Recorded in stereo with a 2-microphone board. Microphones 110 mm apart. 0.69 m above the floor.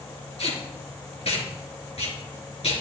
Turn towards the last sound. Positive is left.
turn(degrees=65)  # may be behind; listen again after turning